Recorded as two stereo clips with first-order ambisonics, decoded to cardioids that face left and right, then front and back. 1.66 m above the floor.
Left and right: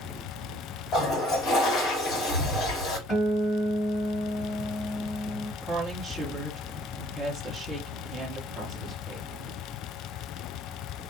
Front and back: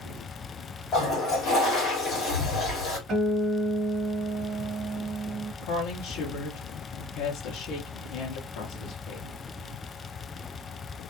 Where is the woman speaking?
10° right, 0.8 m.